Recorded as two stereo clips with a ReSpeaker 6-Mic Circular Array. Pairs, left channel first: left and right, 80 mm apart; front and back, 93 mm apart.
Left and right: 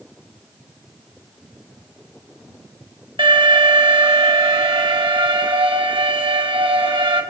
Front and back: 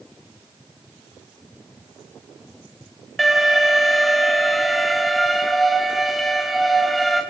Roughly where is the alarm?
Right.